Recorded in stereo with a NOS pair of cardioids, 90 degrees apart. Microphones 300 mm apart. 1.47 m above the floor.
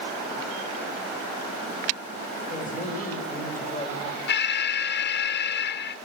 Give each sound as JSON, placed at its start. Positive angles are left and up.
{"t": 2.5, "sound": "a woman speaking", "azimuth_deg": 25, "distance_m": 3.5}
{"t": 4.3, "sound": "an alarm", "azimuth_deg": 35, "distance_m": 0.6}